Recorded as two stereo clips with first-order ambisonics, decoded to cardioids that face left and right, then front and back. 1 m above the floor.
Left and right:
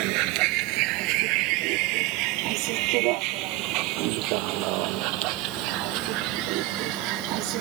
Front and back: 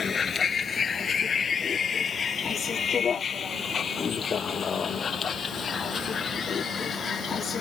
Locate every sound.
0.0 s a vehicle: 70° right; by 7.6 s 65° right